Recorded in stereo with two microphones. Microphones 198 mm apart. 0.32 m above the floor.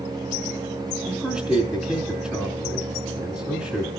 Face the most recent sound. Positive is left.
turn(degrees=0)  # may be behind; listen again after turning